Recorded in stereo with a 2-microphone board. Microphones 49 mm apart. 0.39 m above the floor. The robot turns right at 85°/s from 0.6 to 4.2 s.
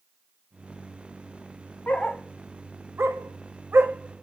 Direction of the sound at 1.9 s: 30° left (ahead or behind).